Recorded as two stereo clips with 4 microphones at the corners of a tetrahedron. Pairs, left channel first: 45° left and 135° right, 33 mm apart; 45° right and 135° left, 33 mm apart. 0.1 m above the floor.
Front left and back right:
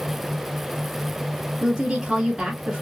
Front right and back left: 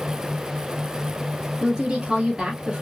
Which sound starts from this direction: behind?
A woman speaking, at 1.6 s.